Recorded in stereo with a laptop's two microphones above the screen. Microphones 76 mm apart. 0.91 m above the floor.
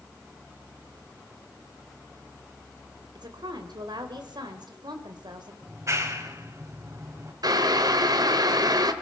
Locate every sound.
3.1 s a woman speaking: 85° right, 3.5 m
5.6 s a clap: 45° right (ahead or behind), 3.5 m
7.4 s boiling: 65° right (ahead or behind), 1.7 m